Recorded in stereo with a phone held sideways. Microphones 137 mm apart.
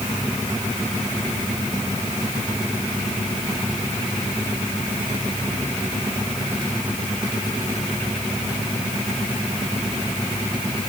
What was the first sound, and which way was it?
Only background noise.